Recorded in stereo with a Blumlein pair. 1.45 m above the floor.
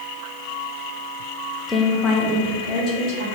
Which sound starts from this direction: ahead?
A woman speaking, at 1.7 s.